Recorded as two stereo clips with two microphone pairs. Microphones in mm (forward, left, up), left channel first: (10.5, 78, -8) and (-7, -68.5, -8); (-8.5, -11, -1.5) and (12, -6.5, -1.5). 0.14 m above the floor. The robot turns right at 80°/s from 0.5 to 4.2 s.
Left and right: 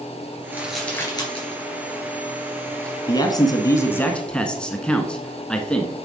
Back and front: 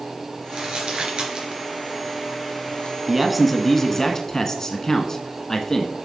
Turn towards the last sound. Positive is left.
turn(degrees=160)